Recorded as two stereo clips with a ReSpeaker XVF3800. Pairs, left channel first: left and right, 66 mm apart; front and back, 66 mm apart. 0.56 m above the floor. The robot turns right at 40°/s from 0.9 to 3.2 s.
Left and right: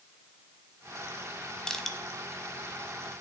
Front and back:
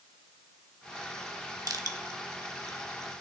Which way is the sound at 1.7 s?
170° left.